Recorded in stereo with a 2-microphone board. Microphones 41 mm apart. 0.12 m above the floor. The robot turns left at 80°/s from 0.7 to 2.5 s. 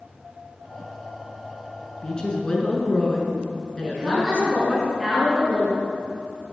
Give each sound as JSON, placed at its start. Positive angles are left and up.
{"t": 2.0, "sound": "a woman speaking", "side_deg": 25, "distance_m": 1.4}
{"t": 3.8, "sound": "a woman speaking", "side_deg": -10, "distance_m": 2.5}